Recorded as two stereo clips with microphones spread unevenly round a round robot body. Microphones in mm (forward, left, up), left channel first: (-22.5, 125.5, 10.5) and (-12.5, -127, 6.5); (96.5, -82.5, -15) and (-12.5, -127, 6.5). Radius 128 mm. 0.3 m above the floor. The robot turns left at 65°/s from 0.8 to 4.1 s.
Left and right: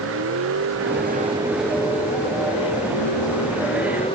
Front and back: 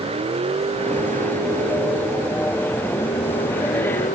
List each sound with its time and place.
0.0 s a vehicle: 125° right; by 4.1 s 20° left